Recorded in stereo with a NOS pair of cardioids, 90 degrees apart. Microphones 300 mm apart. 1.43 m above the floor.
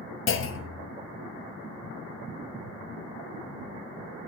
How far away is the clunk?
About 0.8 m.